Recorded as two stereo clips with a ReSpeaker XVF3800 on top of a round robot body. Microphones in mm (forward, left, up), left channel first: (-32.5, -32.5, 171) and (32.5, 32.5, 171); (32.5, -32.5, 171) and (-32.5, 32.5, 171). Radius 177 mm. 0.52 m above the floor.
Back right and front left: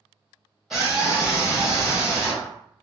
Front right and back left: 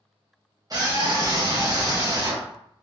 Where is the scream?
135° left, 1.3 m.